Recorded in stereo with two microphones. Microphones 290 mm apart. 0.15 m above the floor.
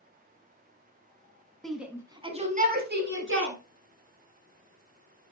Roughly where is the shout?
Centre.